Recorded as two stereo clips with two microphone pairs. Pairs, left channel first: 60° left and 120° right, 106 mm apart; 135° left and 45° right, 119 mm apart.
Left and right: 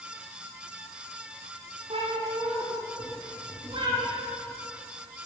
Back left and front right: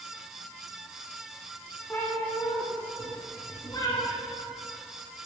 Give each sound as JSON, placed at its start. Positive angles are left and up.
{"t": 1.9, "sound": "a cat meowing", "azimuth_deg": -150, "distance_m": 9.5}